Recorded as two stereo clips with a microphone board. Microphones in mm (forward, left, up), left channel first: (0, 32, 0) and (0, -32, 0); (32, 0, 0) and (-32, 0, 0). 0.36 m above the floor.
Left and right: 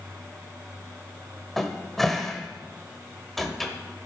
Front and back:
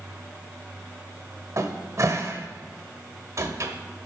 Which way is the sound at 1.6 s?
175° left.